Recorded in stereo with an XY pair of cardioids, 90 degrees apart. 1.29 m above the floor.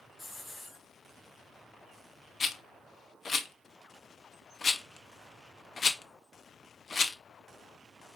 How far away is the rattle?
About 0.5 m.